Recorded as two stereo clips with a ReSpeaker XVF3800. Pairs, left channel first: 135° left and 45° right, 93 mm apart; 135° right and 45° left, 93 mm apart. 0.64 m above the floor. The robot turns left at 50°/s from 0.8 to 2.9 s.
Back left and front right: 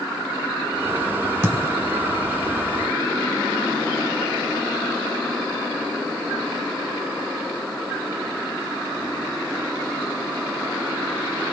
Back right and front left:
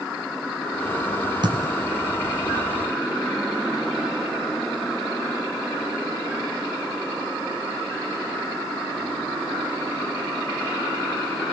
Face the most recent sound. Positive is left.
turn(degrees=-65)